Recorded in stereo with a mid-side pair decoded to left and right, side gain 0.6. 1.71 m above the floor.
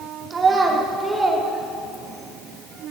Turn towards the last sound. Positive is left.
turn(degrees=10)